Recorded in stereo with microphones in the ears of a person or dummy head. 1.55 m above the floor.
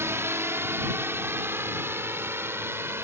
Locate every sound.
0.0 s a drone: 15° right (ahead or behind)